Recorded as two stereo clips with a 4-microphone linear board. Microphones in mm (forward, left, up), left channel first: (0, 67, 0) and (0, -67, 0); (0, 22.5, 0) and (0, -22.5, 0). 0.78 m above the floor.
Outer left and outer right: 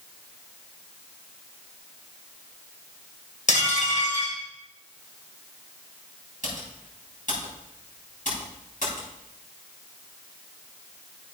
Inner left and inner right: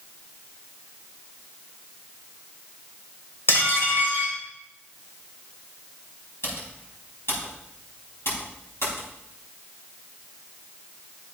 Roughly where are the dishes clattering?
Left.